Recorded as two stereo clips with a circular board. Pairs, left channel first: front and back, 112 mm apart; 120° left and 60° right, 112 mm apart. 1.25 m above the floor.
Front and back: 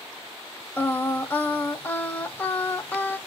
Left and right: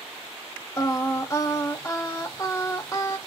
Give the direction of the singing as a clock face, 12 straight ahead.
10 o'clock.